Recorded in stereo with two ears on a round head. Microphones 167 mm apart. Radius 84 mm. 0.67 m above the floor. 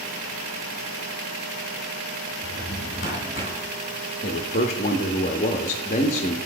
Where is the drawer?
50° left (ahead or behind), 2.5 m.